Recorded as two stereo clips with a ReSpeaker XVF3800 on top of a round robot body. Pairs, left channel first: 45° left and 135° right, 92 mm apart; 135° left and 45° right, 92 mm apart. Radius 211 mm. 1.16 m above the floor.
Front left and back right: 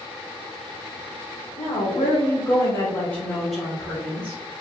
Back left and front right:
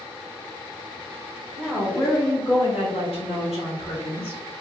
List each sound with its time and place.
1.6 s a woman speaking: 65° left, 1.6 m; by 4.4 s 155° left, 1.9 m